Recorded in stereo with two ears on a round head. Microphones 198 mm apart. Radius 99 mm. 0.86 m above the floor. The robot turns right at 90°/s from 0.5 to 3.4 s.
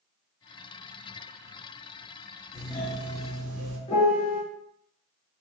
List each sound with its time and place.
2.5 s a doorbell: 145° left, 1.5 m; by 3.8 s 135° right, 1.5 m
3.9 s a piano: 25° left (ahead or behind), 1.0 m